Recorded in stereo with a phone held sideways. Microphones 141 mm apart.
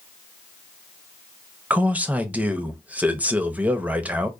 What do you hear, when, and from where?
1.7 s a man speaking: 10° right (ahead or behind), 0.6 m